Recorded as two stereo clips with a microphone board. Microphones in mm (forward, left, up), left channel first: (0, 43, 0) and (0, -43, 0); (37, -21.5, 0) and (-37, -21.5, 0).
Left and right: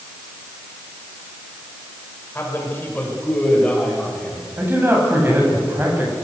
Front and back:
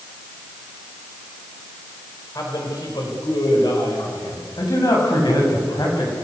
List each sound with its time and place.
2.4 s a man speaking: 25° left, 6.5 m; by 4.5 s 10° left, 7.5 m
4.6 s a man speaking: 25° right, 8.5 m